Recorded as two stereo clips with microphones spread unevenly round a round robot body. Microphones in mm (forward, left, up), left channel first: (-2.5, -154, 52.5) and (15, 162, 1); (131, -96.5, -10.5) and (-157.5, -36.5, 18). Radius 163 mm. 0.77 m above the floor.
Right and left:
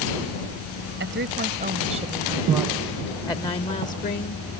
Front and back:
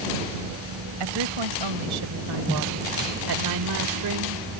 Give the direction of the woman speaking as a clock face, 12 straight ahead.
7 o'clock.